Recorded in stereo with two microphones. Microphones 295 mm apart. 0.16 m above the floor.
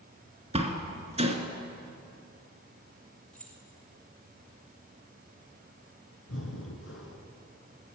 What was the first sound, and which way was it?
A door slam, 20° right (ahead or behind).